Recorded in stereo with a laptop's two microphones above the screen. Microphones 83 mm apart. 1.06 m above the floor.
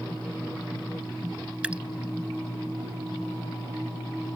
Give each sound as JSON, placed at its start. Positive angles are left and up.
{"t": 1.6, "sound": "dripping", "side_deg": -10}